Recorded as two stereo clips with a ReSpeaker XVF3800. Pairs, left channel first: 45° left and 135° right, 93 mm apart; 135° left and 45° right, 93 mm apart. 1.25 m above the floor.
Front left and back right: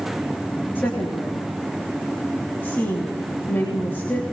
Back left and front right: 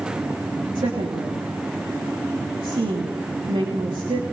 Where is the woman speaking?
25° right, 3 m.